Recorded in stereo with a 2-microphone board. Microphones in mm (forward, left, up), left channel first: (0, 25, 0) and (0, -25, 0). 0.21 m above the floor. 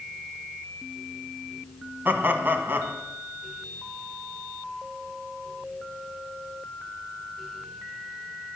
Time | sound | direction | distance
2.0 | laughter | 40° right (ahead or behind) | 1.3 m